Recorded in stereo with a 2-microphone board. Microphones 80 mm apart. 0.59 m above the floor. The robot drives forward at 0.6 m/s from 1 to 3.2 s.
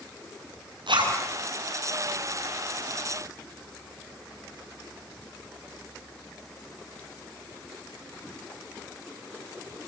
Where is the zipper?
80° right, 7 m.